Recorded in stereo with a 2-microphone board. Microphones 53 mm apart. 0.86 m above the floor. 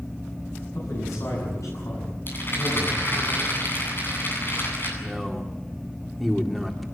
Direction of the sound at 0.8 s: 85° left.